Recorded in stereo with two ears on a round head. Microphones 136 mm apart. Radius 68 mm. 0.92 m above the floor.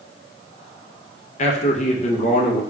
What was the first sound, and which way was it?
A man speaking, 45° left (ahead or behind).